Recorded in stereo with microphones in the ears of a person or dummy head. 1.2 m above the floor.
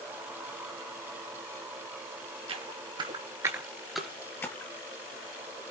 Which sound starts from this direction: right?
Footsteps, at 2.5 s.